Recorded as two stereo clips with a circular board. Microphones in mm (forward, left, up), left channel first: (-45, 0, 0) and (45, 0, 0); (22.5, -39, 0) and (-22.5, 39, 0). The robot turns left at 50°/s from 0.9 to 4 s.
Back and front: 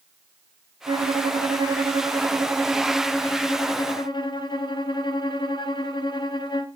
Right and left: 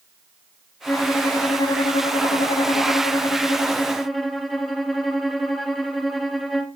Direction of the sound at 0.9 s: 5° left.